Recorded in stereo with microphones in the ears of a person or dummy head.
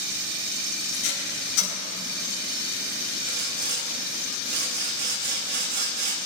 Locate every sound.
0.9 s tape being pulled: 80° left, 6 m
3.3 s sawing: 50° right (ahead or behind), 1.8 m